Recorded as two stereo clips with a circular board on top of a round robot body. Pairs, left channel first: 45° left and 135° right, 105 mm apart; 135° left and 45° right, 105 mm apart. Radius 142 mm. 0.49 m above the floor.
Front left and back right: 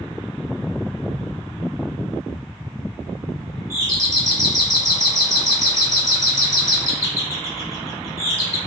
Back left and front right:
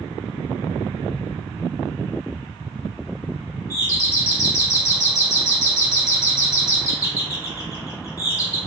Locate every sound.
3.7 s a doorbell: straight behind, 2.5 m